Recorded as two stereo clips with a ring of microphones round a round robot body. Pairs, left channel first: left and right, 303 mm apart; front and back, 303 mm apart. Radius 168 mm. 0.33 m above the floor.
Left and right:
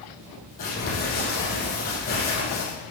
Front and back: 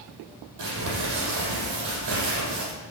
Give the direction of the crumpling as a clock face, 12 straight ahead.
7 o'clock.